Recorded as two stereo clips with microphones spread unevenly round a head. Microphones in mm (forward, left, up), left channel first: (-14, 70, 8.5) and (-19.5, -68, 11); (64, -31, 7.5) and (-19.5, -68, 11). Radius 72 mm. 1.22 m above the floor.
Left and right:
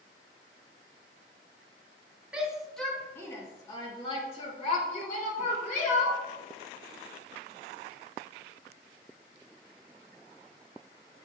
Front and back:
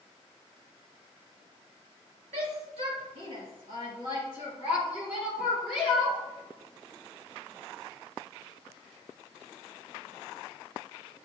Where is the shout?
175° right, 2.5 m; by 6.2 s 110° left, 4.5 m.